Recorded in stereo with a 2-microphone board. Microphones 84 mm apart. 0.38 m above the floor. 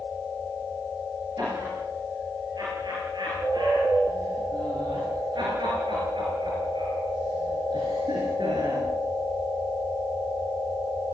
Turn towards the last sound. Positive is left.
turn(degrees=-80)